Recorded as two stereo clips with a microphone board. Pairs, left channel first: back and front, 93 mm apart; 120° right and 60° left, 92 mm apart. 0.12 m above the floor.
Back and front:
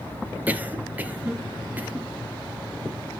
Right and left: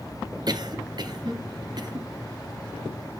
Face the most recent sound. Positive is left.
turn(degrees=65)